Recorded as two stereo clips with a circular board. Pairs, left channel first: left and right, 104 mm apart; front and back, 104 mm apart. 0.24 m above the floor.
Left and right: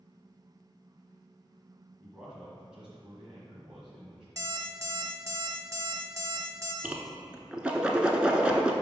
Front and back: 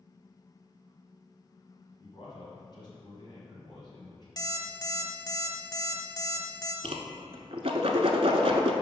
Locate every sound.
2.0 s a man speaking: 10° right, 1.3 m
4.4 s an alarm clock: 40° right, 0.8 m
6.8 s a whoosh: 170° right, 0.7 m